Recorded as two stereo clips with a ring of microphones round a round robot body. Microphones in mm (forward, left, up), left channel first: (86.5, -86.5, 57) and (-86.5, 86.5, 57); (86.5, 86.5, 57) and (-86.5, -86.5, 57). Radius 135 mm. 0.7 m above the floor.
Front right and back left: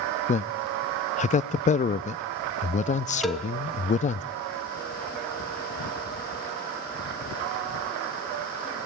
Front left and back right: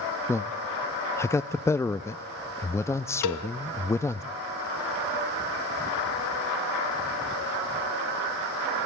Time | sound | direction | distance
0.3 | a man speaking | 25° right | 0.5 m
3.2 | a cowbell | 45° left | 1.2 m